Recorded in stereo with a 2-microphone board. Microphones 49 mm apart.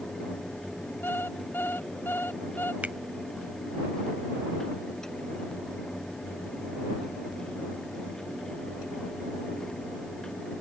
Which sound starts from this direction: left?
An alarm clock, at 1.0 s.